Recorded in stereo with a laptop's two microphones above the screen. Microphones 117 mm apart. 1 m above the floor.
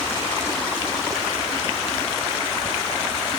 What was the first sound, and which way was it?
Only background noise.